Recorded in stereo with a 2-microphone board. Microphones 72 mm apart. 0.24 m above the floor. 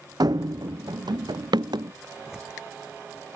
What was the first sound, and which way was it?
Running footsteps, 65° right (ahead or behind).